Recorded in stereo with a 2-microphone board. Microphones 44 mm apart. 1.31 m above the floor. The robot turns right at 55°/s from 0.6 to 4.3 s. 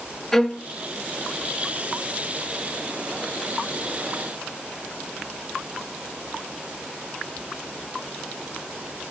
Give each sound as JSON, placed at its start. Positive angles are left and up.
{"t": 0.3, "sound": "a violin", "side_deg": 10, "distance_m": 0.8}